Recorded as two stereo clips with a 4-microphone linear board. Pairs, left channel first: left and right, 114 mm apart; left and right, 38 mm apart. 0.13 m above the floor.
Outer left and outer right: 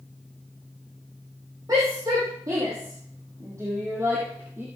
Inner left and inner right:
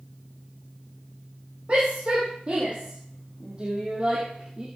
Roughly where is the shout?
Right.